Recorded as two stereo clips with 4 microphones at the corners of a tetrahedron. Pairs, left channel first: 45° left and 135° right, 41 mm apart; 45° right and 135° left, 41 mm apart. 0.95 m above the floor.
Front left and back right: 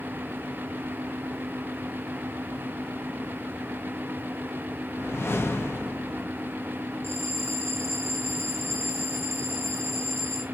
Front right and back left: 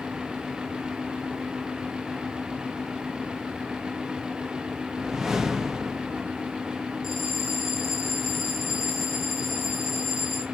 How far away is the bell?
About 4 m.